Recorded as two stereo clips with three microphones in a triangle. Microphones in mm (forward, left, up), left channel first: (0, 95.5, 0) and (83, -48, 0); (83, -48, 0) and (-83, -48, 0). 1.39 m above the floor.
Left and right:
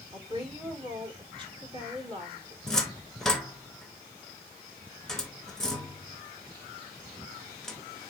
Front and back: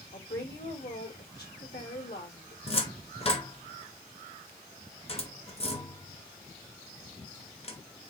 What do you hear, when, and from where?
0.1 s a woman speaking: straight ahead, 2 m
2.7 s a cupboard door: 35° left, 0.9 m